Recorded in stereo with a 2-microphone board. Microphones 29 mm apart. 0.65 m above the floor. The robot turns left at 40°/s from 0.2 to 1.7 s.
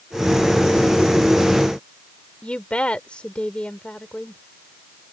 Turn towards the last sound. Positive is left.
turn(degrees=45)  # may be behind; listen again after turning